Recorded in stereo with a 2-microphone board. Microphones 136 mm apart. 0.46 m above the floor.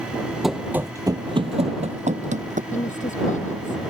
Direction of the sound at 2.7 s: 65° left (ahead or behind).